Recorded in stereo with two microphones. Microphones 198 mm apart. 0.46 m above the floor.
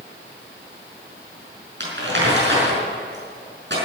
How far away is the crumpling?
About 5.5 m.